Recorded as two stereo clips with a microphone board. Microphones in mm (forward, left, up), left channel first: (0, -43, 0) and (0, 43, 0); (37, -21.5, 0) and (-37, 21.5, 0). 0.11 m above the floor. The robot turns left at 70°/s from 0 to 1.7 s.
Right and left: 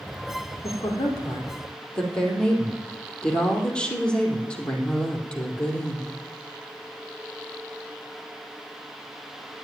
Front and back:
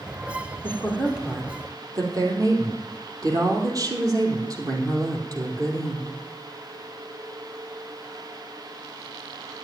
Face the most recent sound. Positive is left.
turn(degrees=-170)